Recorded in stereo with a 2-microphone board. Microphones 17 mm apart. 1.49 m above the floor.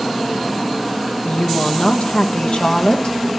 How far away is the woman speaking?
About 1.3 m.